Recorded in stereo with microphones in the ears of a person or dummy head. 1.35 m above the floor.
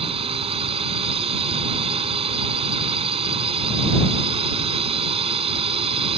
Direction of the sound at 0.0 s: 30° right (ahead or behind).